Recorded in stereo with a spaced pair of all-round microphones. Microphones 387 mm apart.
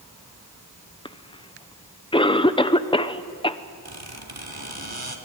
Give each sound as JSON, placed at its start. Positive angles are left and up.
{"t": 1.1, "sound": "a cough", "side_deg": 15, "distance_m": 0.7}
{"t": 3.9, "sound": "a squeak", "side_deg": -70, "distance_m": 2.0}